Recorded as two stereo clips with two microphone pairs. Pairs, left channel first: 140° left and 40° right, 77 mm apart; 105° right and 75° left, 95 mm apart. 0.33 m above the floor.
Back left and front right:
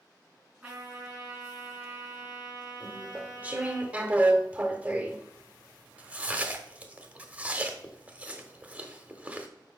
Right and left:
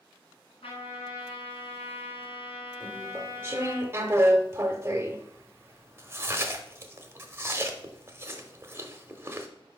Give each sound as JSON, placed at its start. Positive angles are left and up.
{"t": 0.6, "sound": "a trumpet", "azimuth_deg": -115, "distance_m": 3.5}
{"t": 2.8, "sound": "chewing", "azimuth_deg": 25, "distance_m": 0.7}